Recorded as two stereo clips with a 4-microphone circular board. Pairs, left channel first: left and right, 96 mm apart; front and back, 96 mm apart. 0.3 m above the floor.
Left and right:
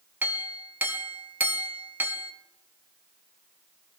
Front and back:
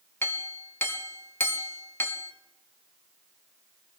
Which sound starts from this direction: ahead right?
A clink, at 0.2 s.